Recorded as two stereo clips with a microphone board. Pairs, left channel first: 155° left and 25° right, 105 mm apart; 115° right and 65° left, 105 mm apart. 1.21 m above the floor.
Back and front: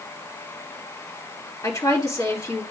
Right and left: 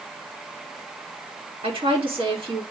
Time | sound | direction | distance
1.6 | a woman speaking | 100° left | 2.5 m